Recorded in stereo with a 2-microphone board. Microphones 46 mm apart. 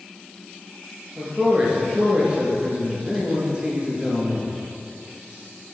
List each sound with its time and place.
1.2 s a man speaking: 20° right (ahead or behind), 3 m